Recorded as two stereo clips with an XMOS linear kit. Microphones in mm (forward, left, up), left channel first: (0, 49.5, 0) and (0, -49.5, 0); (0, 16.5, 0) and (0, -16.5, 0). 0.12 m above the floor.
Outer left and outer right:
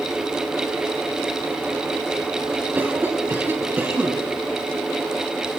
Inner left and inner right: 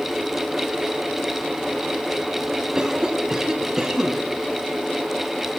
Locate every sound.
2.8 s a cough: 20° right (ahead or behind), 1.6 m